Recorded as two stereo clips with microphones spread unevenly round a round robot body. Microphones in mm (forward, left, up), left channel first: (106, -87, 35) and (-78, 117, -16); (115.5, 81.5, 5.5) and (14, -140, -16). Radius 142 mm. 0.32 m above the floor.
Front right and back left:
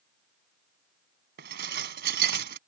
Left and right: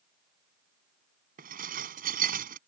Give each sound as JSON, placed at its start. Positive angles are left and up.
{"t": 1.4, "sound": "dishes clattering", "azimuth_deg": -175}